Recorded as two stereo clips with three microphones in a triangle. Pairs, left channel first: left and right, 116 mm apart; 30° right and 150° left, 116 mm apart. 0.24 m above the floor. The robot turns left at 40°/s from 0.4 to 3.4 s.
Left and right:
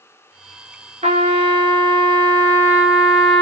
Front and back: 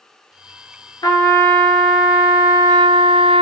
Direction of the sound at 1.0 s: 85° right.